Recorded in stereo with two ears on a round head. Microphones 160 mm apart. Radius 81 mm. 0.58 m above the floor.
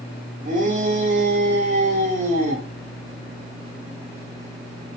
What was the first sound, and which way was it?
A shout, 50° right (ahead or behind).